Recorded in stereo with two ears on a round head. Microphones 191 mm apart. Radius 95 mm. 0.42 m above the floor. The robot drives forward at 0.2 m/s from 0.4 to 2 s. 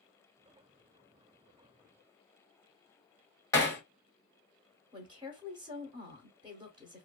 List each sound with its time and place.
3.5 s hammering: 15° left (ahead or behind), 0.9 m
4.9 s a woman speaking: 25° right (ahead or behind), 0.9 m